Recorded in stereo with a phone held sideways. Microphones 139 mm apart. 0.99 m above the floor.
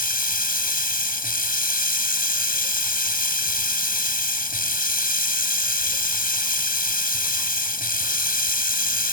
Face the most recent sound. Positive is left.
turn(degrees=80)